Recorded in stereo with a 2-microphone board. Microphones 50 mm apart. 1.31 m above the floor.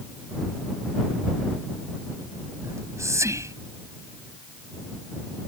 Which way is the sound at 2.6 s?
80° right.